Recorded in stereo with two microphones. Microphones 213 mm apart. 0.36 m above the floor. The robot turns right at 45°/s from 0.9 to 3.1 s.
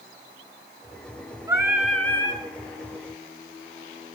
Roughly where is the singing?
Ahead.